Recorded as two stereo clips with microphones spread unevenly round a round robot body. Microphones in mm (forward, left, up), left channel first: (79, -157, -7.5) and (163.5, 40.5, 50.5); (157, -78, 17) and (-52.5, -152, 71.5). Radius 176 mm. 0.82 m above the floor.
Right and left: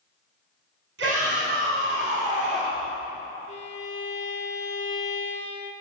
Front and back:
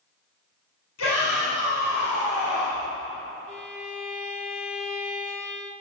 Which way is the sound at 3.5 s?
65° right.